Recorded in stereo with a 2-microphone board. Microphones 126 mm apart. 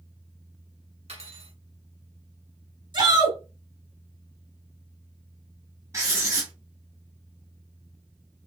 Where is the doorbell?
No doorbell in this recording.